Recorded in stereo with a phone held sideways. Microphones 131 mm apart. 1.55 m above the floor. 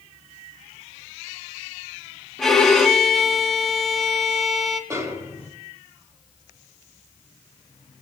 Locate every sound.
2.4 s a violin: 5° left (ahead or behind), 2.0 m
4.9 s a snare drum: 25° right (ahead or behind), 4 m